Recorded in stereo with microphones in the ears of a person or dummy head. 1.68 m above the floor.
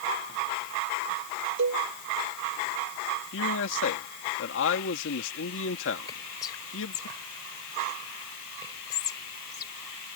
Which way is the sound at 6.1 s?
25° left (ahead or behind).